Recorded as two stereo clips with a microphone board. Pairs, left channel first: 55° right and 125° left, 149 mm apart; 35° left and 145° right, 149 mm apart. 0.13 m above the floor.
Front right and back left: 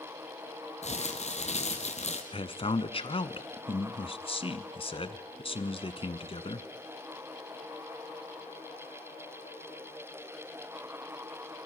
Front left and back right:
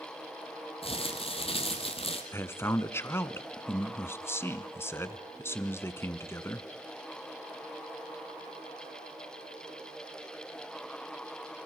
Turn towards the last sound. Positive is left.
turn(degrees=-30)